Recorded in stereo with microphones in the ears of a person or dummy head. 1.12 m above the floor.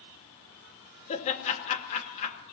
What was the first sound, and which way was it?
Laughter, 40° left (ahead or behind).